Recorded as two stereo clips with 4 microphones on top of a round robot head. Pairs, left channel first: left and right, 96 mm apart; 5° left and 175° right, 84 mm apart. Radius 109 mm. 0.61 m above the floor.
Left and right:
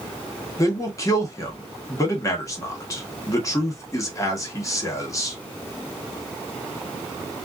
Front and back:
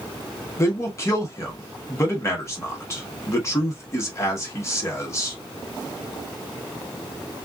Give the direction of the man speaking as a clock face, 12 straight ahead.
10 o'clock.